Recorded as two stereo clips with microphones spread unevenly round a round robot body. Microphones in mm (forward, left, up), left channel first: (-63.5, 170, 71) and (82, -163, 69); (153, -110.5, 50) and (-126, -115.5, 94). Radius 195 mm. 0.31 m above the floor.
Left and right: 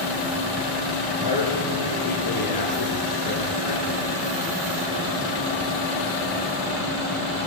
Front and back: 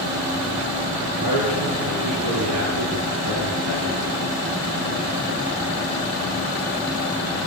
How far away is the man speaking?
About 8.5 m.